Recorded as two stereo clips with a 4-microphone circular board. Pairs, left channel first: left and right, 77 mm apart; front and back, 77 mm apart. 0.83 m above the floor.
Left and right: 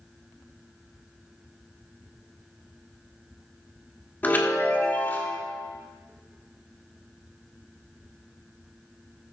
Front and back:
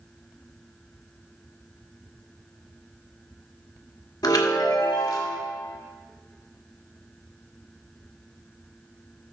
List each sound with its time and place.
4.2 s a chime: 25° left, 1.5 m